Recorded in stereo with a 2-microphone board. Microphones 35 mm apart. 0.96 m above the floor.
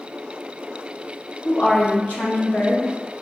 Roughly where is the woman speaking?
Left.